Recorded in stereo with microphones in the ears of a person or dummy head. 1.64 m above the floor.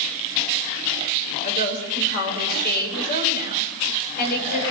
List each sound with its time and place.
1.4 s a woman speaking: 50° left (ahead or behind), 8 m